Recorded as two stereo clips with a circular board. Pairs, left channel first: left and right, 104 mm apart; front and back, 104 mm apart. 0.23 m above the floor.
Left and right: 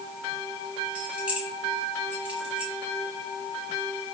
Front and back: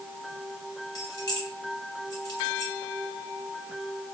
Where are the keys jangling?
15° right, 1.1 m.